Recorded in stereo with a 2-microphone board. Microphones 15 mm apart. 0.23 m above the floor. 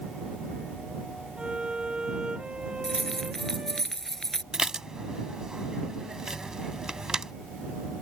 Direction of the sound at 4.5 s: 45° right (ahead or behind).